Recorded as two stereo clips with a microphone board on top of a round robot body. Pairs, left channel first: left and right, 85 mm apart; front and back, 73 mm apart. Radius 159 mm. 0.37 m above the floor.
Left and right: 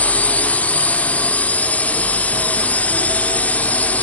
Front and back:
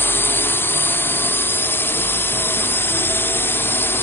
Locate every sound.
0.0 s a drone: 30° left